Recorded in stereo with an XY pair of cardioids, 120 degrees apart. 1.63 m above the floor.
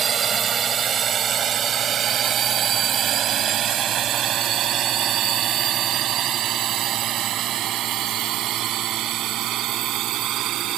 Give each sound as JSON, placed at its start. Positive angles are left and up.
{"t": 0.0, "sound": "a drone", "azimuth_deg": -40}